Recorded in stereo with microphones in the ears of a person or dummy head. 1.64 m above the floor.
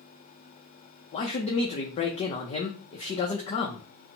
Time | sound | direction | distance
1.1 | a man speaking | 40° left (ahead or behind) | 0.5 m